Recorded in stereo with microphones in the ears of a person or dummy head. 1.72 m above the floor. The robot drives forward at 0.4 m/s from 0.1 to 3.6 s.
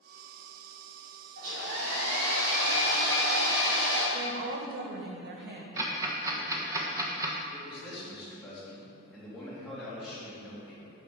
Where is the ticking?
20° right (ahead or behind), 1.2 m.